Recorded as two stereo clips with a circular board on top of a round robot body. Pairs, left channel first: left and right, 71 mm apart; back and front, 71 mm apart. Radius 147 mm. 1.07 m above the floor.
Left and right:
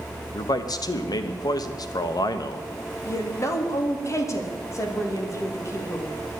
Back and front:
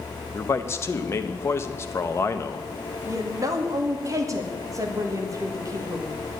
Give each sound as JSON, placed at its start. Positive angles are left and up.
{"t": 0.3, "sound": "a man speaking", "azimuth_deg": 125, "distance_m": 1.1}
{"t": 3.0, "sound": "a woman speaking", "azimuth_deg": 45, "distance_m": 2.0}